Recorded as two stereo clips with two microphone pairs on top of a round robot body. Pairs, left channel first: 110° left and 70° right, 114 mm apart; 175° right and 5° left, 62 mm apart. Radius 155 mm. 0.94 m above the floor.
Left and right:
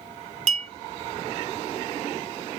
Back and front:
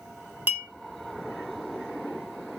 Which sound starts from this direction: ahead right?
A clink, at 0.5 s.